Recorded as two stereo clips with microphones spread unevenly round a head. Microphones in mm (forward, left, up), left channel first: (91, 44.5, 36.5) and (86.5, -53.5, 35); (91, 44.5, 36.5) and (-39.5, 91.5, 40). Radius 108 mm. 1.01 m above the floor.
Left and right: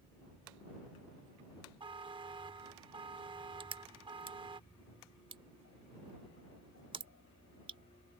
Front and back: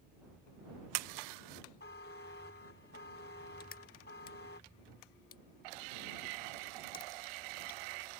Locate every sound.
1.8 s a buzzer: 60° right
3.6 s crushing: 70° right